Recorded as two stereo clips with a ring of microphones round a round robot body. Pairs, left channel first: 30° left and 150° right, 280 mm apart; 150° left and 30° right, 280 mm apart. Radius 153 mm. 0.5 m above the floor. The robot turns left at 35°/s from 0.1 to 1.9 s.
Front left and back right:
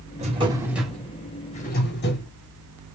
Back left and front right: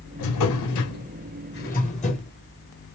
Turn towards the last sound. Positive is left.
turn(degrees=85)